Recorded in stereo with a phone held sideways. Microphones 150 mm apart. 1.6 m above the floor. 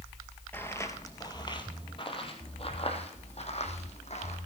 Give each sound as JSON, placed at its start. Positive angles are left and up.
{"t": 0.5, "sound": "footsteps", "side_deg": 15, "distance_m": 1.6}